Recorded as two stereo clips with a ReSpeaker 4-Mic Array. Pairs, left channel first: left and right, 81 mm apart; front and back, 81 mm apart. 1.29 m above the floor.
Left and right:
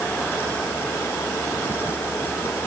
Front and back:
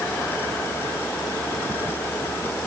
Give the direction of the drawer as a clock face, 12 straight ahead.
No drawer in this recording.